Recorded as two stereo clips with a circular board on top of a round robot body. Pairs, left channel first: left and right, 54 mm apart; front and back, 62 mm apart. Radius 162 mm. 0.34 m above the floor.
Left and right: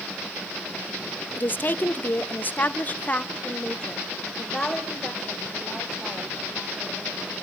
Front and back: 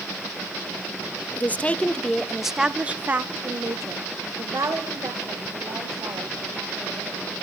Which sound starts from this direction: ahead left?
A woman speaking, at 1.4 s.